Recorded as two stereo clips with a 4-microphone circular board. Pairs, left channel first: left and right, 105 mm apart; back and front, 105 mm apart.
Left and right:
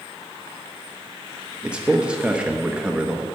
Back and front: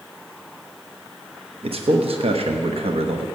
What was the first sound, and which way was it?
A man speaking, 10° right.